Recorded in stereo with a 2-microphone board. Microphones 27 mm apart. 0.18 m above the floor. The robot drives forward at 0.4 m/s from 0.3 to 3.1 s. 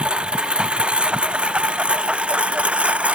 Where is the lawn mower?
45° right (ahead or behind); by 3.1 s 55° right (ahead or behind).